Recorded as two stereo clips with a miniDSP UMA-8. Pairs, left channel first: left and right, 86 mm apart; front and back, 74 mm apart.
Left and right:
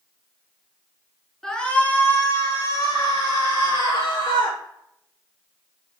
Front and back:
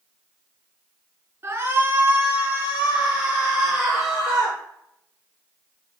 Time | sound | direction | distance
1.4 | a shout | 170° left | 1.6 m